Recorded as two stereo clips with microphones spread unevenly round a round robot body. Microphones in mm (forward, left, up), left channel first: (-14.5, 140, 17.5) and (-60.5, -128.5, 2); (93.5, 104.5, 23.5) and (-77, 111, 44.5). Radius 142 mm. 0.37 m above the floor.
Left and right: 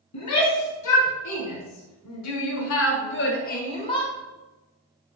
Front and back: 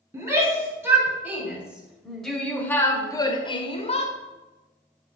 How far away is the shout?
About 3.5 m.